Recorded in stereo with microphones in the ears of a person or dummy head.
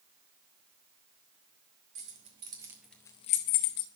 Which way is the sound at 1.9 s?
35° right (ahead or behind).